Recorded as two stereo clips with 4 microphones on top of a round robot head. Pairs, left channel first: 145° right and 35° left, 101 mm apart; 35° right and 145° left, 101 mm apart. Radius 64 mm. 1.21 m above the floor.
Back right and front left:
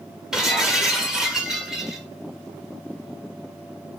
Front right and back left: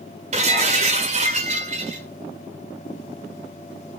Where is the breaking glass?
120° left, 1.4 m.